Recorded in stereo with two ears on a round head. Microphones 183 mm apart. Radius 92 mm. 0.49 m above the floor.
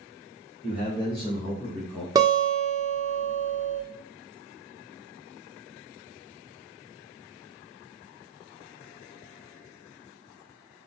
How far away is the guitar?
About 0.9 m.